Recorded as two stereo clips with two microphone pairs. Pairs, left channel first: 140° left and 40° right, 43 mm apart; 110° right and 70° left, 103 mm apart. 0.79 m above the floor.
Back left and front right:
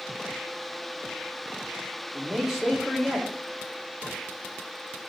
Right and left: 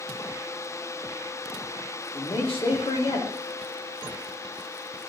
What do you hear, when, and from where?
2.1 s a man speaking: 125° right, 2 m